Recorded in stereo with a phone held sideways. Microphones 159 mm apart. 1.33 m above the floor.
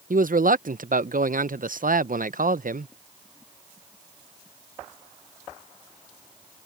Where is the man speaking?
65° right (ahead or behind).